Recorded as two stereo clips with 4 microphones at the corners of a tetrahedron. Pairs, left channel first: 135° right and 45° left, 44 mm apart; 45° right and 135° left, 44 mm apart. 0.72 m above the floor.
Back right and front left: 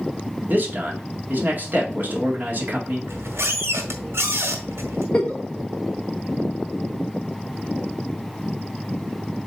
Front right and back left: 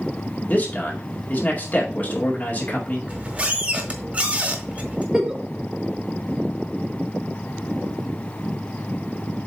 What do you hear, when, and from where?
0.5 s a man speaking: 5° left, 2 m
3.1 s a squeak: 75° left, 1.6 m
5.1 s a giggle: 165° right, 1.1 m